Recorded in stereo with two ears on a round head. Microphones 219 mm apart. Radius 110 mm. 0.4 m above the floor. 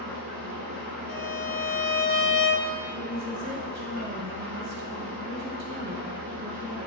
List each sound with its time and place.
0.0 s an engine running: 55° right (ahead or behind), 5.5 m
1.1 s a violin: 55° left (ahead or behind), 1.2 m
2.9 s a woman speaking: 50° right (ahead or behind), 2.5 m